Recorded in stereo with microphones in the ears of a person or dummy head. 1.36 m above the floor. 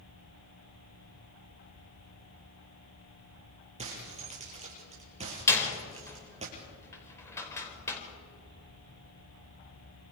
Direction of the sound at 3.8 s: 35° right (ahead or behind).